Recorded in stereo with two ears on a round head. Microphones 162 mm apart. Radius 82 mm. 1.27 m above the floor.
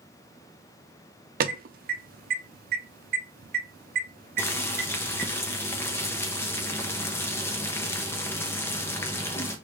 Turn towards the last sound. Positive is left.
turn(degrees=15)  # may be behind; listen again after turning